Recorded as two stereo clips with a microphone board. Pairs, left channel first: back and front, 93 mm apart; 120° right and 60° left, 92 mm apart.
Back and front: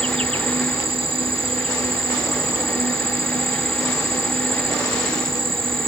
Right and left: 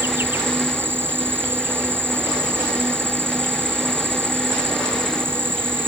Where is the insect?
5° right.